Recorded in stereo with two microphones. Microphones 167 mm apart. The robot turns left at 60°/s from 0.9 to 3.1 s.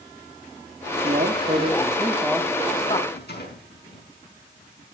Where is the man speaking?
100° right, 1.9 m; by 3.0 s 140° left, 1.9 m.